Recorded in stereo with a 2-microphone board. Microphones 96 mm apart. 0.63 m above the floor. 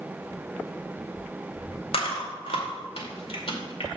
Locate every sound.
1.9 s chewing: 65° left (ahead or behind), 2 m